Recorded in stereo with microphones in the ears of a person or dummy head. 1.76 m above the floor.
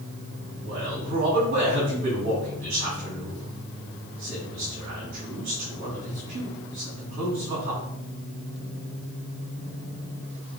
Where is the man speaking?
40° right (ahead or behind), 4.5 m.